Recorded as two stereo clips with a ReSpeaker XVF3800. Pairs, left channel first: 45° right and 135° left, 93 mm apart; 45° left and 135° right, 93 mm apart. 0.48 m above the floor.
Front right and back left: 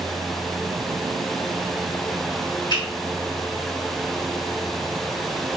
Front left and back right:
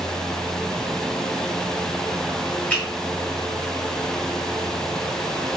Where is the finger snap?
25° right, 1.4 m.